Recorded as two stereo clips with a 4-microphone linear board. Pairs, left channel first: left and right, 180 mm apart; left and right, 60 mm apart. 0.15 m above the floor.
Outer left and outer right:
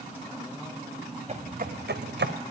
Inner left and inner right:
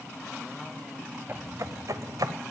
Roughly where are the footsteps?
Right.